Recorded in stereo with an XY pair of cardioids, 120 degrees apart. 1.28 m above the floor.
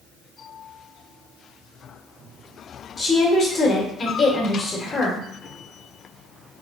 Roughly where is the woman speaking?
Ahead left.